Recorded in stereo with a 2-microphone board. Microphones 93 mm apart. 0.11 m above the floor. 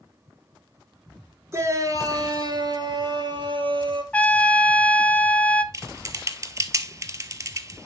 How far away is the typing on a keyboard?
About 0.7 m.